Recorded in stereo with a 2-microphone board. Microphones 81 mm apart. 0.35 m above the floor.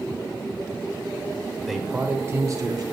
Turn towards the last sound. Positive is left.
turn(degrees=-50)  # may be behind; listen again after turning